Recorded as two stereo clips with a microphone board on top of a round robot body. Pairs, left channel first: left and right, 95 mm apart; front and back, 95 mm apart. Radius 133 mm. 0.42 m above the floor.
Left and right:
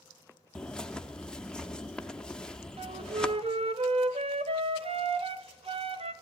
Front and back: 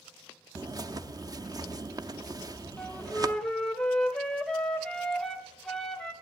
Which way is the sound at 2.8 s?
80° right.